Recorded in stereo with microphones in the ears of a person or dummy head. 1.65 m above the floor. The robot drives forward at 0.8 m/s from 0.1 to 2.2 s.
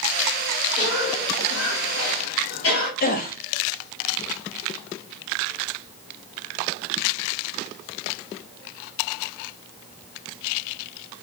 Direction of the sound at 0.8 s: 65° left (ahead or behind).